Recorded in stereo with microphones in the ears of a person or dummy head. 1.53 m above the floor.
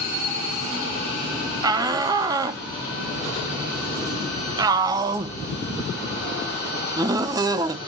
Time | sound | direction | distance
1.6 | a shout | 25° right (ahead or behind) | 0.8 m